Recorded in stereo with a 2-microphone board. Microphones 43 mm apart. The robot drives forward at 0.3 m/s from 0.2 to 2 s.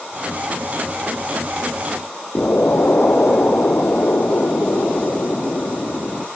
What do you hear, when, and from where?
2.4 s an explosion: 45° left (ahead or behind), 1.4 m